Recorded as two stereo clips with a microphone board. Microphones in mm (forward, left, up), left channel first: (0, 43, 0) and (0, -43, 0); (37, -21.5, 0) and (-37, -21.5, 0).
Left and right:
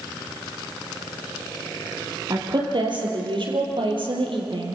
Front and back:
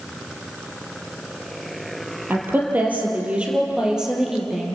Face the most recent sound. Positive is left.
turn(degrees=-95)